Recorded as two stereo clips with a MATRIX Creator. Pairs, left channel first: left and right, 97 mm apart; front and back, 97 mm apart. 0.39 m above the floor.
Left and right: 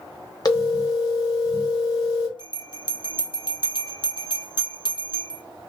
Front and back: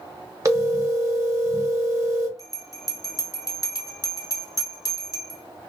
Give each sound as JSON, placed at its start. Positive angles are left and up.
{"t": 0.5, "sound": "a phone ringing", "azimuth_deg": 130, "distance_m": 0.7}
{"t": 2.4, "sound": "a bell", "azimuth_deg": 55, "distance_m": 0.6}